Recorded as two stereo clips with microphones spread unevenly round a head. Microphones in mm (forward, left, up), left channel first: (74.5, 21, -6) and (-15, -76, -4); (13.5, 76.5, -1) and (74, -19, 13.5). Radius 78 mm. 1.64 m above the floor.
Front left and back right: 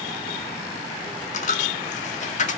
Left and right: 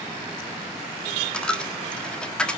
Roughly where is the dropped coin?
Ahead left.